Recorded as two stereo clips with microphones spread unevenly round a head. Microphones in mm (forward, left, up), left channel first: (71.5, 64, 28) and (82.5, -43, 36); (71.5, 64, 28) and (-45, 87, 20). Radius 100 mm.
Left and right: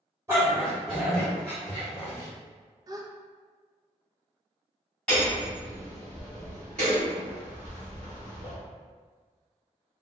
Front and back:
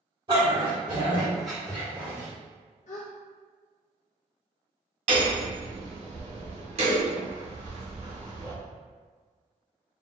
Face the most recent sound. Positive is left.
turn(degrees=180)